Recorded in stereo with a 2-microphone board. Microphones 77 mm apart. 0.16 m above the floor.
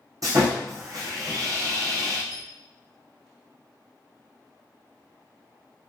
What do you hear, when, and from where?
0.2 s sawing: 50° right (ahead or behind), 1.6 m
2.3 s a squeak: 15° left (ahead or behind), 1.2 m